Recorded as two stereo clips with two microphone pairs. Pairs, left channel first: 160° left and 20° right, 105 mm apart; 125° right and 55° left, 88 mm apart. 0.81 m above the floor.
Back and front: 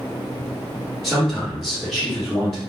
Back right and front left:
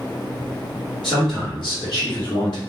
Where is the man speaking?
115° right, 1.3 m.